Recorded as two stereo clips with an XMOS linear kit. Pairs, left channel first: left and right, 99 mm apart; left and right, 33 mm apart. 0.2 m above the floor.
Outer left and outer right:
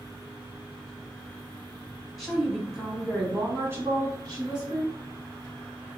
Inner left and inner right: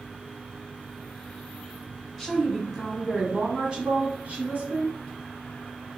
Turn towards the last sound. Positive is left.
turn(degrees=-50)  # may be behind; listen again after turning